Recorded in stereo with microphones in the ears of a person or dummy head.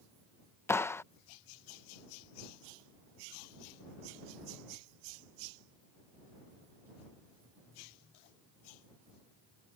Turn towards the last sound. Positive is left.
turn(degrees=15)  # may be behind; listen again after turning